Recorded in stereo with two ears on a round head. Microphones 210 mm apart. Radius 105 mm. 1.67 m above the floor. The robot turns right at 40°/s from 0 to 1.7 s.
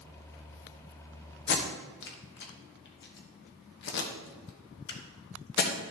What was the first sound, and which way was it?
Tape being pulled, 50° left (ahead or behind).